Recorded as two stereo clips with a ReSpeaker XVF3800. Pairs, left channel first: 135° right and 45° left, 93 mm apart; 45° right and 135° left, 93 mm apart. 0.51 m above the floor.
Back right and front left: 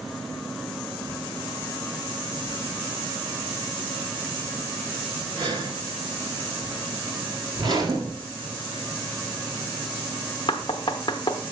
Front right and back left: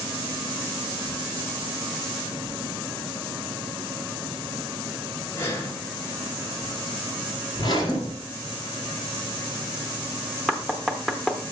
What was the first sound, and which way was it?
Breathing, 15° left.